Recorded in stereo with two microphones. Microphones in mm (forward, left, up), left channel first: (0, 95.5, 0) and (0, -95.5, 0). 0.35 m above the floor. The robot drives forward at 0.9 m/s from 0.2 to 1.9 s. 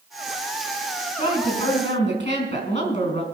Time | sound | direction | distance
1.2 | a woman speaking | 35° left (ahead or behind) | 4 m